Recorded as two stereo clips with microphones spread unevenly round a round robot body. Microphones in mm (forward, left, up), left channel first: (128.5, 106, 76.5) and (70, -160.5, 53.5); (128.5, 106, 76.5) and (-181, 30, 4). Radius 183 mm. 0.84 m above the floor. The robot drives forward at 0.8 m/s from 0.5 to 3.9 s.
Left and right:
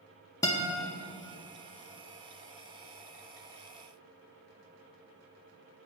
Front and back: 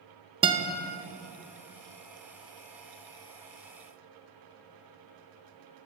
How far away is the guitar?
About 0.6 m.